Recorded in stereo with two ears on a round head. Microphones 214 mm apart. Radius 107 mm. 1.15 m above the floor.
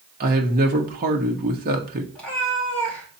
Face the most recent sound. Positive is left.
turn(degrees=5)  # may be behind; listen again after turning